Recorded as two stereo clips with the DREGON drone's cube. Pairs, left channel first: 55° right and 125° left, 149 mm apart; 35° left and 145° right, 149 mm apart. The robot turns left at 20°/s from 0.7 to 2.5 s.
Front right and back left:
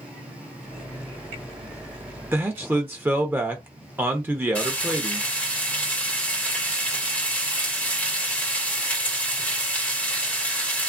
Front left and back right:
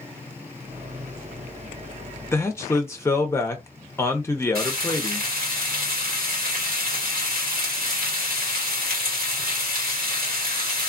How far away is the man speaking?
About 0.6 m.